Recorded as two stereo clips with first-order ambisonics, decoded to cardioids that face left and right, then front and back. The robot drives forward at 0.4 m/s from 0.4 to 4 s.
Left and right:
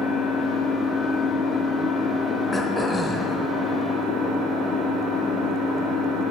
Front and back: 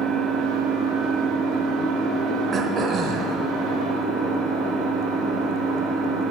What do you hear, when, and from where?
0.0 s an engine running: 145° left, 1.1 m; by 6.3 s 165° left, 2.5 m
2.5 s throat clearing: 150° left, 0.6 m; by 3.4 s 170° left, 0.8 m